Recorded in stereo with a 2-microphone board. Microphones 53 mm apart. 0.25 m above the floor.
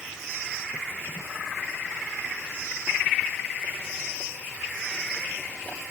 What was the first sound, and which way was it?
Only background noise.